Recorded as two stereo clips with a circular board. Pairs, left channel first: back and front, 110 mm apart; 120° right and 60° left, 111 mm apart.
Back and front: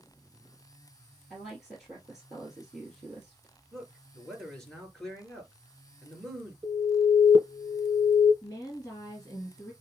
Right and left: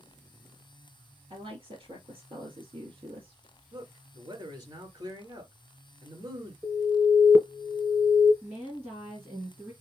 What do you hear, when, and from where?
1.3 s a woman speaking: 95° left, 3 m
3.7 s a man speaking: 95° left, 2.0 m
6.6 s an alarm: 10° right, 1.2 m
8.4 s a woman speaking: 125° left, 3 m